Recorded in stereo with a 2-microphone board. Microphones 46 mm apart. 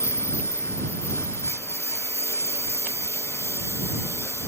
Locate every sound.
0.0 s a lawn mower: 75° left (ahead or behind)